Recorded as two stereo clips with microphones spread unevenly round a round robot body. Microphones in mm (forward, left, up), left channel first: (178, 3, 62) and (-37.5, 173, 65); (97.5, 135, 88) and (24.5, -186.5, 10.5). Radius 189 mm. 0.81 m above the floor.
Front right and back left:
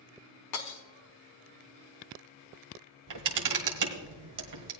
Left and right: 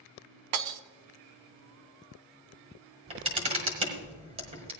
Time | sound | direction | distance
0.5 | breaking glass | 80° right | 0.8 m
3.1 | a camera shutter | straight behind | 1.3 m